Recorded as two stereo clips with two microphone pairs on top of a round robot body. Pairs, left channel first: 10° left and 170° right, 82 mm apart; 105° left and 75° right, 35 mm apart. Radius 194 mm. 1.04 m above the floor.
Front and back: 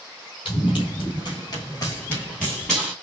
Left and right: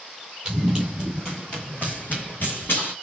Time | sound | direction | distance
0.5 | running footsteps | straight ahead | 1.4 m